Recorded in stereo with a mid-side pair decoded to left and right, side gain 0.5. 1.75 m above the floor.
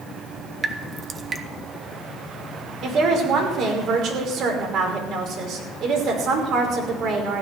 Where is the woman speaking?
65° right, 5.5 m.